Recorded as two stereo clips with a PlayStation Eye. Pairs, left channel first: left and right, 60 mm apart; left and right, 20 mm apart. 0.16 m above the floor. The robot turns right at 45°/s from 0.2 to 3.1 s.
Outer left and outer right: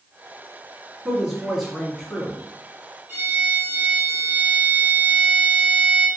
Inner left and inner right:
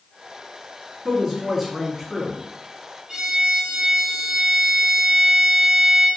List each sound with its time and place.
1.1 s a woman speaking: 20° right, 1.4 m; by 2.4 s 35° left, 1.4 m
3.1 s a violin: 35° right (ahead or behind), 1.2 m